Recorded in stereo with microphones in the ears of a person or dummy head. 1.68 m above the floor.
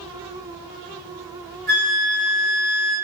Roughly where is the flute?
Right.